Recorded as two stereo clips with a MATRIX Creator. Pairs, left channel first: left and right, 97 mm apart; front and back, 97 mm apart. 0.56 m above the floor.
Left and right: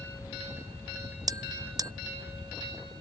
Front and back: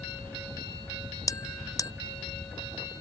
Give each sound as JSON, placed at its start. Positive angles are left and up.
{"t": 1.3, "sound": "a bell", "azimuth_deg": -45}